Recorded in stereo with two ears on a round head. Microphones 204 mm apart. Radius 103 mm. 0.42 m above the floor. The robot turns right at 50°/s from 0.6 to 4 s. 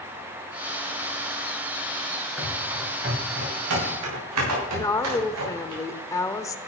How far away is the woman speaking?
About 0.9 m.